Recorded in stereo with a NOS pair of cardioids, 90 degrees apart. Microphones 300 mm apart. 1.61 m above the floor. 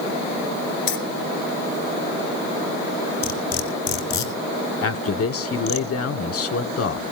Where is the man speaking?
50° left, 1.3 m.